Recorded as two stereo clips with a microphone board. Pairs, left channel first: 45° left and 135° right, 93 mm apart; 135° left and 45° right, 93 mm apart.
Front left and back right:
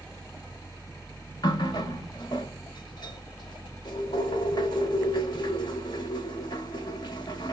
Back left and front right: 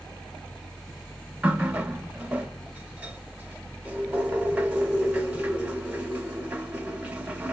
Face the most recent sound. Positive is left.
turn(degrees=25)